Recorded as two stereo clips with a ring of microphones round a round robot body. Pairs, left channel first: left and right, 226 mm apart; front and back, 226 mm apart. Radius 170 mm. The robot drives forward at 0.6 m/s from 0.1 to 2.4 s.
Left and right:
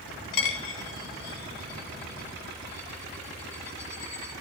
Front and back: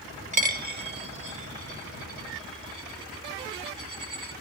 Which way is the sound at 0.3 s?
125° left.